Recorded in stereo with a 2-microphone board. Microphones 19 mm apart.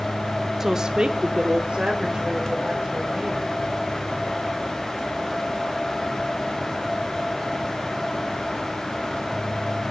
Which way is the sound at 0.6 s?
20° right (ahead or behind).